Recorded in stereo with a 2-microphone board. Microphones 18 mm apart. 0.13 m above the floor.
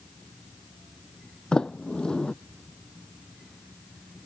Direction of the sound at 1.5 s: 55° left (ahead or behind).